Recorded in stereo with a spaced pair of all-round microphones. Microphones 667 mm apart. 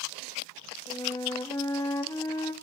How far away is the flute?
About 1.7 m.